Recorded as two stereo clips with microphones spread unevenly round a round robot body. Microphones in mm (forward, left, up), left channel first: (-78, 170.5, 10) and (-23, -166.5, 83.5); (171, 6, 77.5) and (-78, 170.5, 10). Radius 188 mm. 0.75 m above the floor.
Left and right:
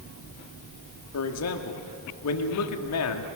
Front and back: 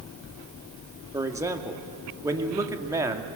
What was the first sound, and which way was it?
A man speaking, 75° left.